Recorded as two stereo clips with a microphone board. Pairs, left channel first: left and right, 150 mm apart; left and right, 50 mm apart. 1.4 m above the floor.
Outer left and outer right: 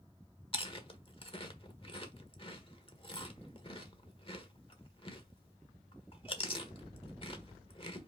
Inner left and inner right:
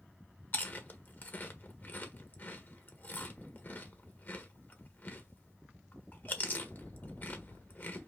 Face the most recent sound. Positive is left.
turn(degrees=35)  # may be behind; listen again after turning